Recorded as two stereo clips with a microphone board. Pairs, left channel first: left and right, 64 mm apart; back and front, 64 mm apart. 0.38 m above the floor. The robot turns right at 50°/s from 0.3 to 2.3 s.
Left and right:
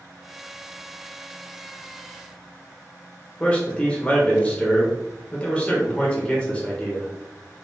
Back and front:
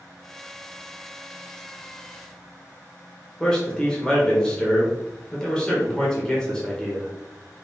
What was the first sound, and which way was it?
A man speaking, 125° left.